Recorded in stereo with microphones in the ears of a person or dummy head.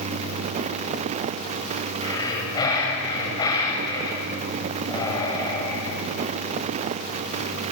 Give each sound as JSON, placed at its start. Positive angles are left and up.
{"t": 2.0, "sound": "breathing", "side_deg": 25, "distance_m": 6.0}